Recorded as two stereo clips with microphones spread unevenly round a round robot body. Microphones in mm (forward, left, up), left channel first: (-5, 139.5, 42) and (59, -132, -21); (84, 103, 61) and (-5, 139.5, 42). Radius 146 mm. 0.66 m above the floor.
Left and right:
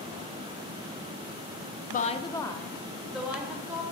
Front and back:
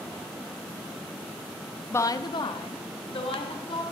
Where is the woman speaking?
45° left, 0.7 m; by 3.8 s 5° left, 2.5 m.